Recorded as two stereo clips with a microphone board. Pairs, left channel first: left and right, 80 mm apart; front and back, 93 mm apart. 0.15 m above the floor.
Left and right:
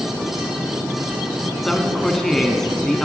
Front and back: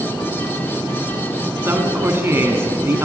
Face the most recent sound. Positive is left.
turn(degrees=170)